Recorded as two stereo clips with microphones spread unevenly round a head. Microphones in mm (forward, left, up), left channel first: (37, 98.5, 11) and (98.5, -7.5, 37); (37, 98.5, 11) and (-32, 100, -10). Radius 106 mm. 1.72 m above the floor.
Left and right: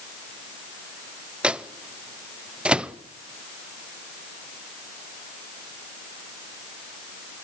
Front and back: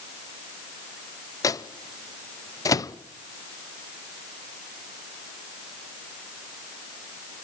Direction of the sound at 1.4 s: 20° left.